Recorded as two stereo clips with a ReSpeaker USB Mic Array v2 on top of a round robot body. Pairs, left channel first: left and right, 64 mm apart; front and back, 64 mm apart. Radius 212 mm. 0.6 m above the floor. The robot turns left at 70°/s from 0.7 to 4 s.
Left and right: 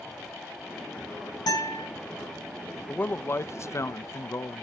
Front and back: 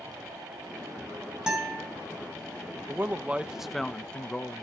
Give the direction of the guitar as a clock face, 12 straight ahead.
9 o'clock.